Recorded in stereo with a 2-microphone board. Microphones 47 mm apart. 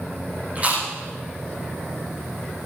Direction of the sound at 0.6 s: 30° right (ahead or behind).